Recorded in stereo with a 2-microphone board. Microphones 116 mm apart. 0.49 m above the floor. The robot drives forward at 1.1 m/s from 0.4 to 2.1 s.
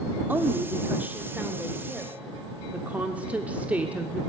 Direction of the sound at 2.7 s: 15° right (ahead or behind).